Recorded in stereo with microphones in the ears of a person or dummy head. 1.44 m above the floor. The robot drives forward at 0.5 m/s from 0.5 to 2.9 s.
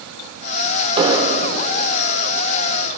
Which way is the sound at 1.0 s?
30° right (ahead or behind).